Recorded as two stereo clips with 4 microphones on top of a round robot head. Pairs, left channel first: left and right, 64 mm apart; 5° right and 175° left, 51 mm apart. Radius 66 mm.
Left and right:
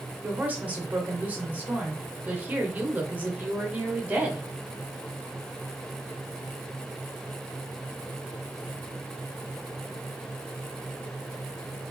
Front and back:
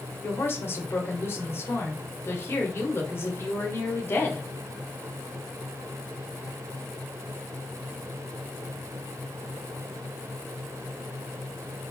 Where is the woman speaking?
30° right, 1.9 m.